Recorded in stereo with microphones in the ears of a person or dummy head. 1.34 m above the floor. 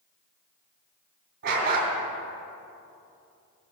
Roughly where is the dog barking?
Right.